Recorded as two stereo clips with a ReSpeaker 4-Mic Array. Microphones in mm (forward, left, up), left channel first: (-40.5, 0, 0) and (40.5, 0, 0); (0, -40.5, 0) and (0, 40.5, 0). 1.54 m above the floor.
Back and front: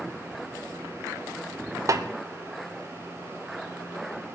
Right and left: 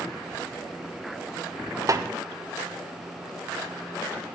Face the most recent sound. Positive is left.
turn(degrees=45)